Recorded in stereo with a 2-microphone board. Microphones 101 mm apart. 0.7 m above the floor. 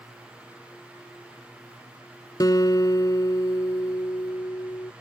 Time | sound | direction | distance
2.4 | a guitar | 40° left (ahead or behind) | ?